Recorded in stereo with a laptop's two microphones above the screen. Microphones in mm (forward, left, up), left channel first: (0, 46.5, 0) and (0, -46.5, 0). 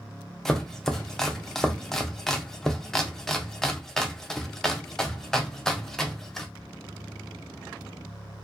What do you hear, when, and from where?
0.5 s chopping: 5° left (ahead or behind), 0.6 m